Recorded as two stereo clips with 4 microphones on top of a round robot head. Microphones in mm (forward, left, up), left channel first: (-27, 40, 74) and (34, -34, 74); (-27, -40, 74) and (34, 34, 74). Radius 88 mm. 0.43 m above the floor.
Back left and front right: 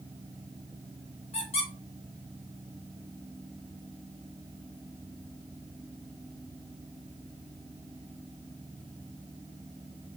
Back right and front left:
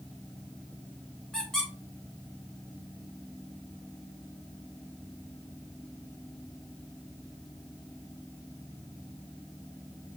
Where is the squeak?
145° left, 3.5 m.